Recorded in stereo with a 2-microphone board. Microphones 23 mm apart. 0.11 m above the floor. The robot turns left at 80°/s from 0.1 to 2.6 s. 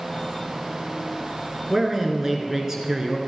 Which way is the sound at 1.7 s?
15° right (ahead or behind).